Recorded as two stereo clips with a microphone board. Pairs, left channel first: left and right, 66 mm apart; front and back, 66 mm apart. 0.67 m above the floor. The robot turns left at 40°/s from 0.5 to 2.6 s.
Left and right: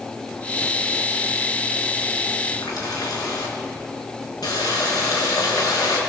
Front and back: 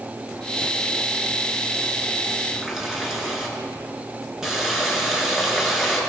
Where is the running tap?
100° left, 5 m; by 6.0 s 95° left, 5 m.